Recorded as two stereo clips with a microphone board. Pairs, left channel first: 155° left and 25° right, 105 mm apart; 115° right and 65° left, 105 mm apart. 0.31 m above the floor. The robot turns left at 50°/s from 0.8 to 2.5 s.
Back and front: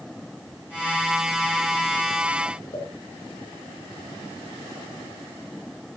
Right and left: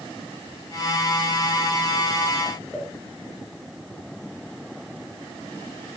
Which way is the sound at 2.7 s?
160° left.